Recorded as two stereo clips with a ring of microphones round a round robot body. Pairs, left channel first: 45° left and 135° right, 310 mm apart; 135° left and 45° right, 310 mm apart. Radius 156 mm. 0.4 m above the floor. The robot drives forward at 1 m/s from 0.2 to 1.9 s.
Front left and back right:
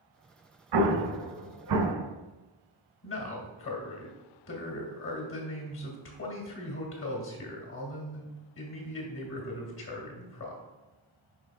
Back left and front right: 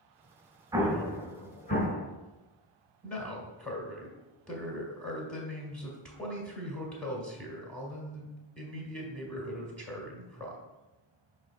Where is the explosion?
125° right, 0.8 m; by 2.0 s 160° right, 1.7 m.